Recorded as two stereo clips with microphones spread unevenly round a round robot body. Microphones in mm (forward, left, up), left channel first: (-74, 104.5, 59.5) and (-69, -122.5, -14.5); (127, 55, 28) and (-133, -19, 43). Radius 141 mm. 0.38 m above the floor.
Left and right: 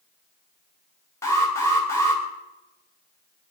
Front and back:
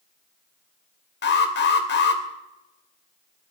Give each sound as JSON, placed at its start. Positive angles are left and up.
{"t": 1.2, "sound": "an alarm", "azimuth_deg": -5, "distance_m": 2.5}